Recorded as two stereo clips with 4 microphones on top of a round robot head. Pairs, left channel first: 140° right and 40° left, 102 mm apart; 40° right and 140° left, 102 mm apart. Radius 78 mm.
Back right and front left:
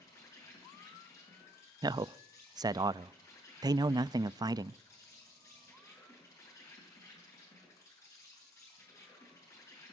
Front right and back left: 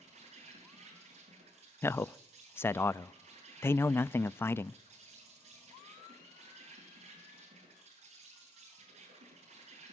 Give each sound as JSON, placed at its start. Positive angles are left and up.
{"t": 0.0, "sound": "an insect", "azimuth_deg": 160, "distance_m": 8.0}
{"t": 1.8, "sound": "a man speaking", "azimuth_deg": 15, "distance_m": 0.5}